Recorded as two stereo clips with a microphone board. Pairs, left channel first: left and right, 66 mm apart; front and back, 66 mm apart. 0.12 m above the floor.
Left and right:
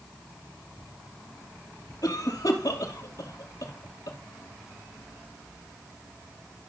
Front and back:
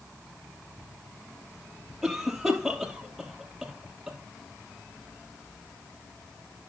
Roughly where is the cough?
Left.